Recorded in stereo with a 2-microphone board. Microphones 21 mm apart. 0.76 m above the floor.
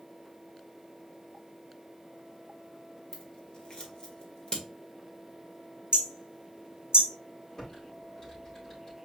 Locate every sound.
3.1 s scissors: 40° left (ahead or behind), 1.6 m
5.9 s hammering: 50° right (ahead or behind), 1.2 m
7.6 s typing on a keyboard: 30° left (ahead or behind), 3.5 m